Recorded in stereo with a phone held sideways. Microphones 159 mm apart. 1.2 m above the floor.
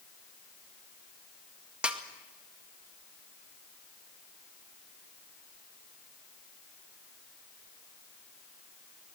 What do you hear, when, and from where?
1.8 s a snare drum: 5° right (ahead or behind), 1.8 m